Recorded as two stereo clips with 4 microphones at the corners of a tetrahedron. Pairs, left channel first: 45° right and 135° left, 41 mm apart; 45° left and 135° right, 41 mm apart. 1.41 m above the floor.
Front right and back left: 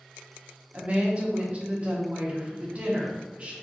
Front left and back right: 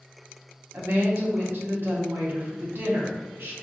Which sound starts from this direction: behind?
A woman speaking, at 0.7 s.